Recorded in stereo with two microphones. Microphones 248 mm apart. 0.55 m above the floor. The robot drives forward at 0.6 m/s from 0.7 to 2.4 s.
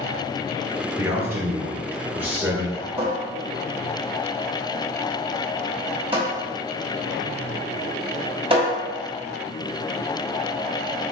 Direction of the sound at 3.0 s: 25° right (ahead or behind).